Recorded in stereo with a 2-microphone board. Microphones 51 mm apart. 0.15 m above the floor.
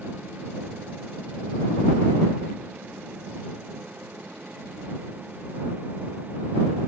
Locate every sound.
Only background noise.